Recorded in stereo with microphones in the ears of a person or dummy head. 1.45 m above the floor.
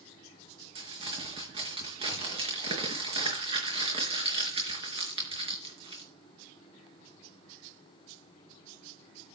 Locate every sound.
0.8 s crumpling: 30° right (ahead or behind), 4.5 m